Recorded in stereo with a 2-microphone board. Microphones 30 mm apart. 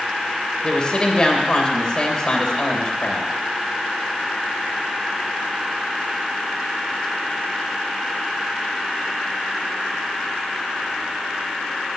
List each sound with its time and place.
0.6 s a woman speaking: 30° left (ahead or behind), 2.5 m